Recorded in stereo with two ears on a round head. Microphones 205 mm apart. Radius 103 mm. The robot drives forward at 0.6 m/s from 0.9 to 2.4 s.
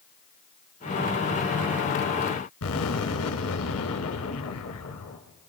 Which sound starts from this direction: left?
An explosion, at 2.6 s.